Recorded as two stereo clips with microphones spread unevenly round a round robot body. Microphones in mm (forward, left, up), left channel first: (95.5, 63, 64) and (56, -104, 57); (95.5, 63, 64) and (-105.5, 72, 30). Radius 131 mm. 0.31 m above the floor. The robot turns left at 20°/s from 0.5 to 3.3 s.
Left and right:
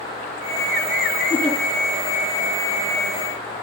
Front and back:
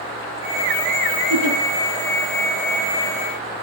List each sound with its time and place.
1.3 s a giggle: 165° left, 5.5 m; by 1.6 s 160° left, 5.5 m